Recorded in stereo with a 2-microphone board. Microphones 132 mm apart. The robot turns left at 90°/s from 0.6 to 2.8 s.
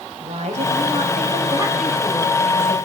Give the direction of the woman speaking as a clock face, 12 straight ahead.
2 o'clock.